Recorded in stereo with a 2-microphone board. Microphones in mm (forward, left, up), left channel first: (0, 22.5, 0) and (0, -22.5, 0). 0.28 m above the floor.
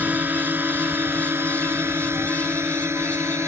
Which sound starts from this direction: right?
A drone, at 0.0 s.